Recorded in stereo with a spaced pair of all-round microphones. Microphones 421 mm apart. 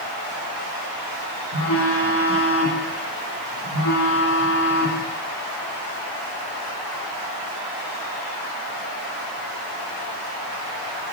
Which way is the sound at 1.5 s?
80° left.